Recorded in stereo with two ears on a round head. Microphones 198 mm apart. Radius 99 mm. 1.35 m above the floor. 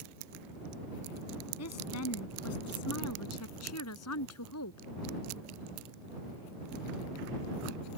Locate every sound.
1.6 s a woman speaking: 85° left; by 4.9 s 80° left